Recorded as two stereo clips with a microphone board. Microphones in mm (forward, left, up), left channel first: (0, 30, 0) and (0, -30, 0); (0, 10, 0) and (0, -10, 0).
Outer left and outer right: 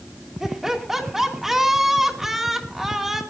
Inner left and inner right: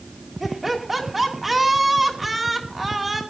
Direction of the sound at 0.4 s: 5° right (ahead or behind).